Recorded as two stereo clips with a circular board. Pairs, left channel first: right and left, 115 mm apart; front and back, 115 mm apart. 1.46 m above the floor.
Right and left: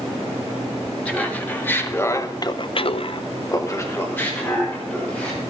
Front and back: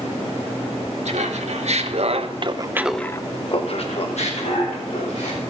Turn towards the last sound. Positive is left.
turn(degrees=-10)